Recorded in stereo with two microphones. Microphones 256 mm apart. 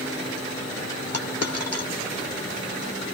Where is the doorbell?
I don't hear a doorbell.